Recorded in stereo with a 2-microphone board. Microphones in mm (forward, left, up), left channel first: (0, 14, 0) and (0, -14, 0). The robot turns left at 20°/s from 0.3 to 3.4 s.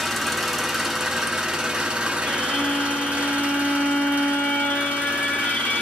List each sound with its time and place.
0.0 s an engine running: 5° right, 0.9 m; by 5.8 s 65° right, 0.9 m
2.3 s a violin: 55° left (ahead or behind), 1.0 m; by 5.8 s 65° left (ahead or behind), 1.0 m